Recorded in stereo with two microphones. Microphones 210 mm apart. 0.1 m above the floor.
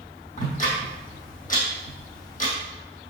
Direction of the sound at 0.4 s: 40° left (ahead or behind).